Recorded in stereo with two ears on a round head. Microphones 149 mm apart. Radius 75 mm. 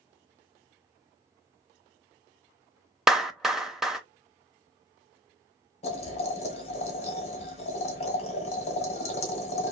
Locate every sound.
3.1 s a clap: centre (ahead or behind), 0.6 m
5.8 s boiling: 40° left (ahead or behind), 1.8 m